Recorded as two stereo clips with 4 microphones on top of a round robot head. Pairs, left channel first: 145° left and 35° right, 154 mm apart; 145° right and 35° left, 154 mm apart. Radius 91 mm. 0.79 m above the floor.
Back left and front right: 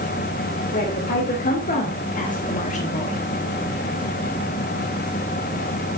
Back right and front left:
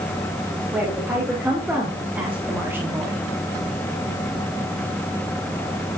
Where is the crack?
No crack in this recording.